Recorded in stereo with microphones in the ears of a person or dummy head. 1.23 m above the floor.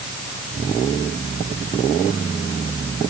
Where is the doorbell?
No doorbell in this recording.